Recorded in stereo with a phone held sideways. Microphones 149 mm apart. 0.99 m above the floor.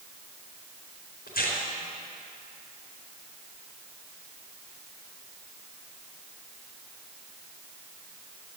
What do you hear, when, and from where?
1.3 s tearing paper: 75° left (ahead or behind), 4 m